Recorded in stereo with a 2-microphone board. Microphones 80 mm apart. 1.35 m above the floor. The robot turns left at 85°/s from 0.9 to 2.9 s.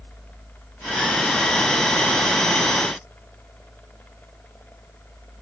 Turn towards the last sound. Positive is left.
No sound to turn to.